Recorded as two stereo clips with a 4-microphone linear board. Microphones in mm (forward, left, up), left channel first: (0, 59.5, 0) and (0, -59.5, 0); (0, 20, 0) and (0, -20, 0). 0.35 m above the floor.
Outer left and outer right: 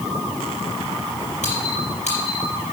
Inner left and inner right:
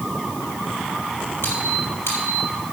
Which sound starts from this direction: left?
A squeak, at 1.4 s.